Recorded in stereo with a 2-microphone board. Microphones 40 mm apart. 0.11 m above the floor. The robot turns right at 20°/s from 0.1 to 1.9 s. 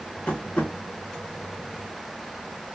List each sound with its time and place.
0.3 s tapping: 25° left (ahead or behind), 1.0 m; by 0.7 s 35° left (ahead or behind), 1.0 m